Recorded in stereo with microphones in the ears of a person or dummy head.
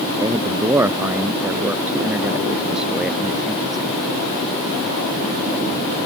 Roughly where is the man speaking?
Right.